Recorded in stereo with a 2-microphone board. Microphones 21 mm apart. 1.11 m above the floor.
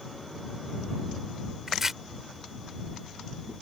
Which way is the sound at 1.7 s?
20° right (ahead or behind).